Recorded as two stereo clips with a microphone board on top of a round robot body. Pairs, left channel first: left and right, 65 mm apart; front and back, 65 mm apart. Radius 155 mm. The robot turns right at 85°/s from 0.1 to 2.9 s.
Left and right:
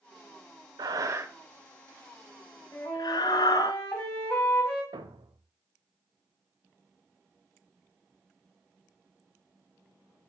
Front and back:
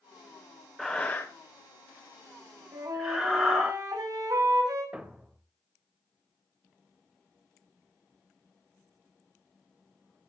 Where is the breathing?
85° right, 0.5 m; by 3.7 s 95° left, 0.5 m.